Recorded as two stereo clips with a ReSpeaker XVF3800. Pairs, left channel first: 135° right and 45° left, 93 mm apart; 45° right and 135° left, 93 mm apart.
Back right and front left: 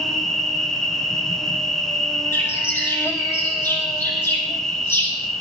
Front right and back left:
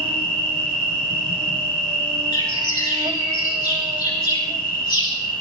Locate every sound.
0.0 s an insect: 140° left, 1.1 m
2.3 s a bird: 75° right, 4.5 m